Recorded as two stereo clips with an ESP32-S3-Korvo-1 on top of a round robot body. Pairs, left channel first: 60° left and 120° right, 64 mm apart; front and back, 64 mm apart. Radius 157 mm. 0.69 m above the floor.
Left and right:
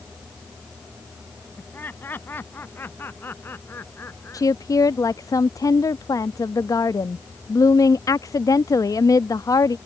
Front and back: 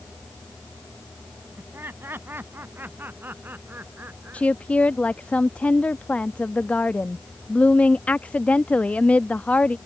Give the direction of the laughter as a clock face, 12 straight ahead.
8 o'clock.